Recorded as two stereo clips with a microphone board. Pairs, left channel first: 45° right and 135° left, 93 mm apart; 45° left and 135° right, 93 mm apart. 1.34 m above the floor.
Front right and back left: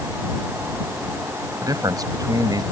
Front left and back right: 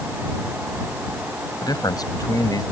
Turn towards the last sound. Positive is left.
turn(degrees=90)